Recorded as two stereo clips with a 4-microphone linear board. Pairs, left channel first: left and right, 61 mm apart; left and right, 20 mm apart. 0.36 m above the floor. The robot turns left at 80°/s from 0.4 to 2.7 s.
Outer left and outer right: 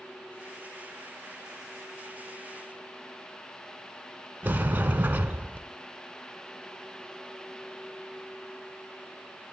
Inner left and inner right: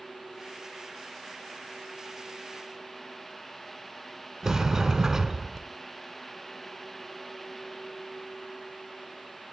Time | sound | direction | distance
4.4 | a sliding door | 30° right (ahead or behind) | 0.5 m